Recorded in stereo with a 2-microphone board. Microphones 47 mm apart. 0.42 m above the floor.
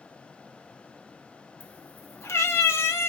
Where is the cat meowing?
45° left (ahead or behind), 0.9 m; by 3.1 s 65° left (ahead or behind), 0.9 m.